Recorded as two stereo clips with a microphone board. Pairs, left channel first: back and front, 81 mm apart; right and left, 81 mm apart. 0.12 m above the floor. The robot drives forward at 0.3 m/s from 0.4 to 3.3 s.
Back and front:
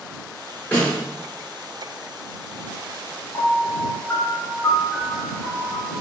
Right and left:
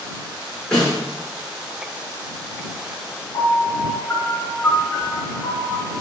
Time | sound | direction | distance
0.7 | a snare drum | 160° right | 1.5 m
3.3 | a piano | 140° right | 0.8 m